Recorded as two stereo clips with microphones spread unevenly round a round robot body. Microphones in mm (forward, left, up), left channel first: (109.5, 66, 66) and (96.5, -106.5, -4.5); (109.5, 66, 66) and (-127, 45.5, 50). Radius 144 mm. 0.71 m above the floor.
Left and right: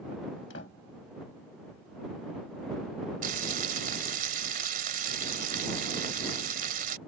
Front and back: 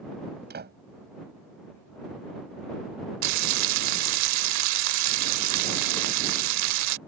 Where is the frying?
165° right.